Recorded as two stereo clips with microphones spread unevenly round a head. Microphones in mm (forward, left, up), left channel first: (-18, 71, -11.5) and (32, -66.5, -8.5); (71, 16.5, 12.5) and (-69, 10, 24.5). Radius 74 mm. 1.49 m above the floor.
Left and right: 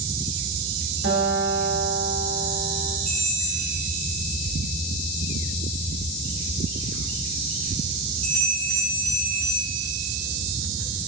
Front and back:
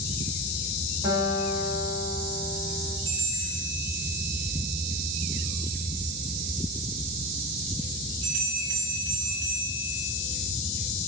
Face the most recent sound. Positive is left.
turn(degrees=-170)